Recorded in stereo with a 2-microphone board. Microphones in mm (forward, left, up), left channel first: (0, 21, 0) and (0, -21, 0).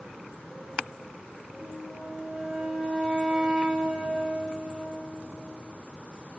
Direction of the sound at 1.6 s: 25° right (ahead or behind).